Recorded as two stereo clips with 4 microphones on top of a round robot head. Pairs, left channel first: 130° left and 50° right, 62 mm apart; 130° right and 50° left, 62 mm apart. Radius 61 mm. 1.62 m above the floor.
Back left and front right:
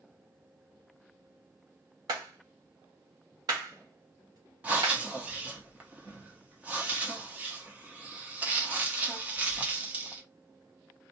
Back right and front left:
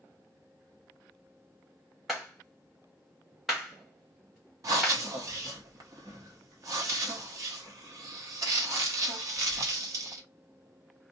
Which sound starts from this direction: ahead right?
A clap, at 2.1 s.